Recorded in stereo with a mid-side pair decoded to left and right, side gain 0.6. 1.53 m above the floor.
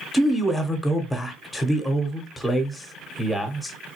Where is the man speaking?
5° left, 0.9 m.